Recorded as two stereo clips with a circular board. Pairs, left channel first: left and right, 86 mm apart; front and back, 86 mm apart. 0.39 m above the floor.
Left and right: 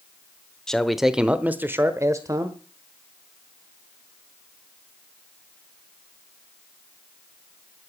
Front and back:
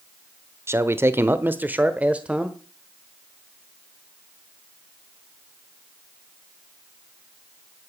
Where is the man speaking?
165° left, 0.9 m; by 2.6 s 105° right, 1.2 m.